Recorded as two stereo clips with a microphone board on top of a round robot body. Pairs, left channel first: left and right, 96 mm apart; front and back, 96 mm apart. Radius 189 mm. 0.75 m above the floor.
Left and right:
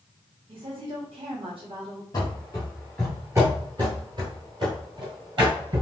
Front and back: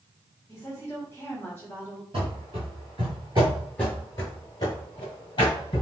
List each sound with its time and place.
0.5 s a woman speaking: 70° right, 1.5 m
2.1 s running footsteps: 150° left, 1.0 m; by 5.8 s 45° right, 1.6 m